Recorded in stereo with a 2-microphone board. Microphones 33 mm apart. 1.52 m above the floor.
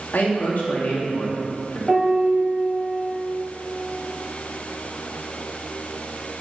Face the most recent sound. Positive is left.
turn(degrees=0)  # may be behind; listen again after turning